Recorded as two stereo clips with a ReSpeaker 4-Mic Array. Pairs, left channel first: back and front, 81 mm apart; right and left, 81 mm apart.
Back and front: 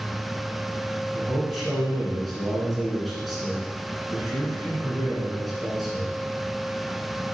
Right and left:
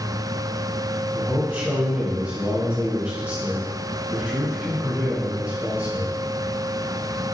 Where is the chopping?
I don't hear chopping.